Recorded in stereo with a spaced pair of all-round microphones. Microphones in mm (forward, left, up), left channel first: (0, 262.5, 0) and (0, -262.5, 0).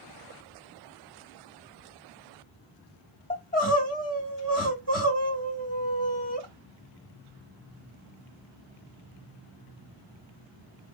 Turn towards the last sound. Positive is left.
turn(degrees=15)  # may be behind; listen again after turning